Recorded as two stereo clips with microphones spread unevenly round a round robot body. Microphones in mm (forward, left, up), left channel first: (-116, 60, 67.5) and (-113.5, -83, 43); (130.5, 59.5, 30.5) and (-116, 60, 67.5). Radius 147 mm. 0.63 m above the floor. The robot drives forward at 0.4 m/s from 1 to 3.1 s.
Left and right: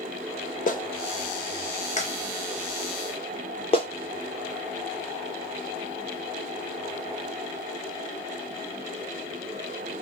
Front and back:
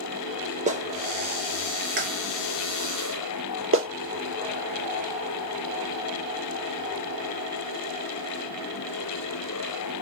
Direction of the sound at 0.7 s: 115° left.